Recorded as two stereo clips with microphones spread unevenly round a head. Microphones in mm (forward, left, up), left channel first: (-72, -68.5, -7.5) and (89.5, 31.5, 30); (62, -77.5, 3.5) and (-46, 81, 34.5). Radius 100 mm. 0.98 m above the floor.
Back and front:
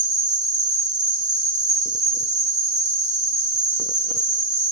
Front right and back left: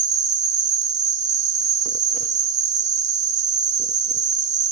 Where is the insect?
70° left, 0.7 m.